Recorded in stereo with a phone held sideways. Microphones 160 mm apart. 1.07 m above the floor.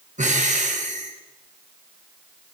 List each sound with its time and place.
0.2 s breathing: 50° right (ahead or behind), 1.3 m